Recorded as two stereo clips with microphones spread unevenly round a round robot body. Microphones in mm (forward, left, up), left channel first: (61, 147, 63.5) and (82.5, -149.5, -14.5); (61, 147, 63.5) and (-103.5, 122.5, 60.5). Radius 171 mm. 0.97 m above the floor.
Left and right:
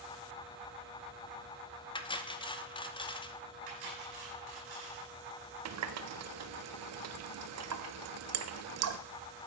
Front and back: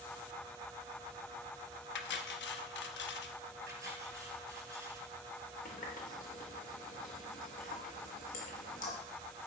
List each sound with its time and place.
1.9 s cutlery clinking: 20° left, 0.8 m
3.7 s cutlery clinking: 110° right, 4.5 m
5.7 s a running tap: 50° right, 0.7 m